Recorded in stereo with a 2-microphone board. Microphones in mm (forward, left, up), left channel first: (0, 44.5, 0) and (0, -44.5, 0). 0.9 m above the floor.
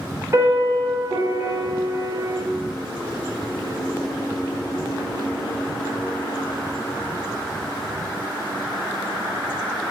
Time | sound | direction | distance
0.3 | a piano | 35° right (ahead or behind) | 2.5 m